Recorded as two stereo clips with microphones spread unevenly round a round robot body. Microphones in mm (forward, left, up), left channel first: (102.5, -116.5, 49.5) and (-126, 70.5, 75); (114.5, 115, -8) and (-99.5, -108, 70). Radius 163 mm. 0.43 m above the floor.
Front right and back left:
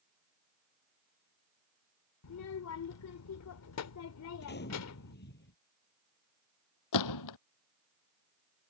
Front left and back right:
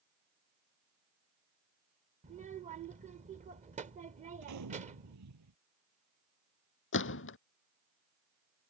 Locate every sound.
2.2 s a child speaking: 60° right
4.4 s a gunshot: 95° right
6.9 s a gunshot: 10° right